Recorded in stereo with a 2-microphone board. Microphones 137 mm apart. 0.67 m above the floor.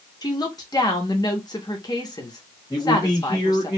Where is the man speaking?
25° left (ahead or behind), 1.4 m.